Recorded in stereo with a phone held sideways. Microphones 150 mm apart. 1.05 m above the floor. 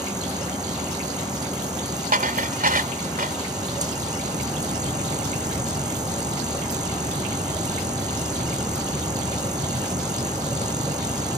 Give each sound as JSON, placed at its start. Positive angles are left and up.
{"t": 0.0, "sound": "a machine running", "side_deg": -25}
{"t": 2.1, "sound": "dishes clattering", "side_deg": -80}